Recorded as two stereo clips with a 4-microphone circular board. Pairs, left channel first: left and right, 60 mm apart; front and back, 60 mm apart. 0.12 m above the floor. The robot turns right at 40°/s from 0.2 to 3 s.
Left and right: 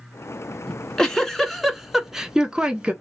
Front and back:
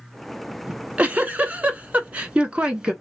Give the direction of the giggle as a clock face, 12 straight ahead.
7 o'clock.